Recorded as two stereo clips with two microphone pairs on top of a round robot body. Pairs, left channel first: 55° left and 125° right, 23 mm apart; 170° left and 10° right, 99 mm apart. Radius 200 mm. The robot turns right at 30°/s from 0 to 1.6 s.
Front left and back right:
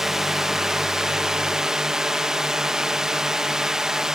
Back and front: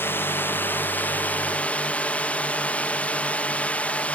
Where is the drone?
Straight behind; by 4.2 s 130° right.